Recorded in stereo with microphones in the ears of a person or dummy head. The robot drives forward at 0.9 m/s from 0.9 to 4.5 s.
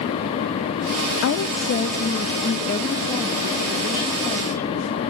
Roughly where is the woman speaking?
Left.